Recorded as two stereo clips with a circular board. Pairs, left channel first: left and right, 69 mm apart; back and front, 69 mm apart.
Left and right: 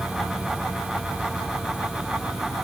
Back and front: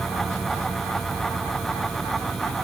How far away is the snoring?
I don't hear snoring.